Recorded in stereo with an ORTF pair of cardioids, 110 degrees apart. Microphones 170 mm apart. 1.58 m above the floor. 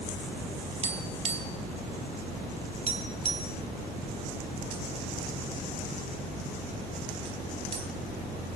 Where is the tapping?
35° right, 3 m.